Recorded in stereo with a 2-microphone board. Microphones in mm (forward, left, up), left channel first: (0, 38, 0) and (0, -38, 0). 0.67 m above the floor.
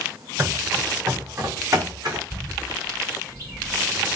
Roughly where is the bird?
Right.